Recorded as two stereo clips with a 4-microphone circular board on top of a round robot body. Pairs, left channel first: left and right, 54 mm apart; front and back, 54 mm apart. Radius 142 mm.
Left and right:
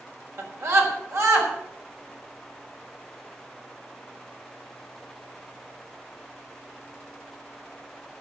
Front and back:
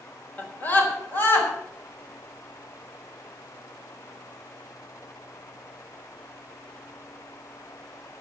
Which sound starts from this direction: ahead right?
A scream, at 0.4 s.